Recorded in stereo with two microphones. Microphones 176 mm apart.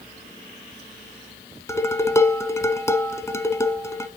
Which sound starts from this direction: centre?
Dishes clattering, at 1.7 s.